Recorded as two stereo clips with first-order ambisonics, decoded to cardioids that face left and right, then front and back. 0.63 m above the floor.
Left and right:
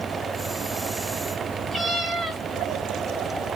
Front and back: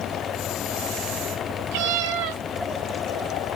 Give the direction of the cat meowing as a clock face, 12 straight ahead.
6 o'clock.